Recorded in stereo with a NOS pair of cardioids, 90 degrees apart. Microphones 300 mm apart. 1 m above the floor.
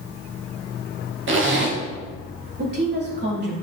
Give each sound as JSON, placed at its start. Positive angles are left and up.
{"t": 1.3, "sound": "a zipper", "azimuth_deg": -40, "distance_m": 1.5}
{"t": 2.6, "sound": "a woman speaking", "azimuth_deg": -35, "distance_m": 2.5}